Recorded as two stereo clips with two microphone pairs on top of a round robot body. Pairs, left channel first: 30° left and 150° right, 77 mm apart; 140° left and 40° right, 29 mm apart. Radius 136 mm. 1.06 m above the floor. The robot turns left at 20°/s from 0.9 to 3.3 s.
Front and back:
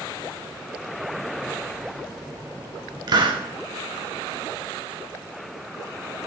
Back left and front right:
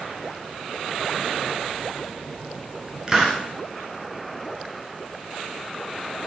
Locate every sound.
3.1 s a hiss: 115° right, 0.8 m; by 3.4 s 120° right, 0.8 m